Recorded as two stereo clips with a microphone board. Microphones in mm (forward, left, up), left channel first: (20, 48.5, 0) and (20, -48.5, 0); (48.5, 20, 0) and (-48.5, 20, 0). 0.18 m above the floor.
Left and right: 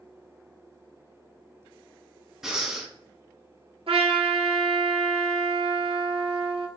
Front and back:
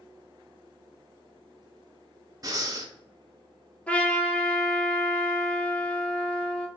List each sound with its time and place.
2.4 s breathing: 175° right, 0.6 m
3.9 s a trumpet: 75° right, 0.7 m